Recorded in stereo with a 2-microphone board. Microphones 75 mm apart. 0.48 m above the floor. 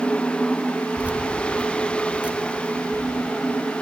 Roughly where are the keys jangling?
Centre.